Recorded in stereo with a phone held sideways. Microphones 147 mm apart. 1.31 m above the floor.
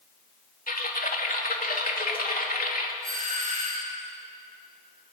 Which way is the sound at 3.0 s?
70° right (ahead or behind).